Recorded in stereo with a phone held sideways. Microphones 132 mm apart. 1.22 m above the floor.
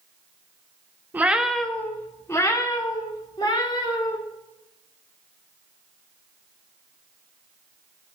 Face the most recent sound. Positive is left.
turn(degrees=40)  # may be behind; listen again after turning